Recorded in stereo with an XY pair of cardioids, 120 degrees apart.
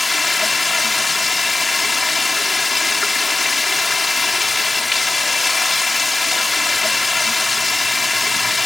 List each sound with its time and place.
0.0 s running water: 20° left